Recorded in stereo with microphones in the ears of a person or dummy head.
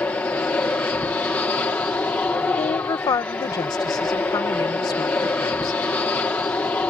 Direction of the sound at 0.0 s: 15° left (ahead or behind).